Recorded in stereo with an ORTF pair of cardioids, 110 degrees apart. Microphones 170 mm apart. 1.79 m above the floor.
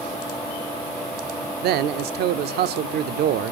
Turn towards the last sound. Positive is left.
turn(degrees=-70)